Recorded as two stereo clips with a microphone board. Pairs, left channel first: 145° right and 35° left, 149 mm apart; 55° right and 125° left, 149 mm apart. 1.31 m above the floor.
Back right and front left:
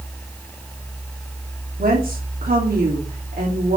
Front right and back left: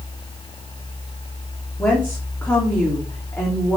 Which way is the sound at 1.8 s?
20° left.